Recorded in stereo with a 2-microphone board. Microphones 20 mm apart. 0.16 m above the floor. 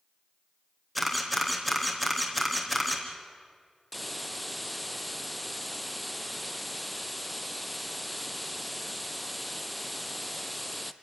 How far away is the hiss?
About 0.7 m.